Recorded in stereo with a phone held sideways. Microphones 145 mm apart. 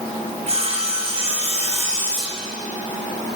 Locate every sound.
0.5 s sawing: 45° right (ahead or behind), 3.5 m